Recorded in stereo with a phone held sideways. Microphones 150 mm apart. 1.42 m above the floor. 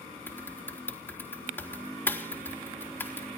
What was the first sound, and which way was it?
Typing on a keyboard, 15° left (ahead or behind).